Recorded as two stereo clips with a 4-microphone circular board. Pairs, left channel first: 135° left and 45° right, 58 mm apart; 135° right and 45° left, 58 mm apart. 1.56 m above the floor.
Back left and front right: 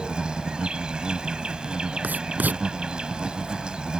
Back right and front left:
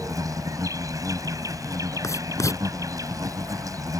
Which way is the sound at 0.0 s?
30° left.